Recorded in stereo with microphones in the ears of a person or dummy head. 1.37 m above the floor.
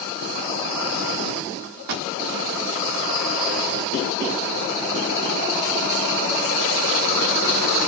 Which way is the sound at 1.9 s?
55° right (ahead or behind).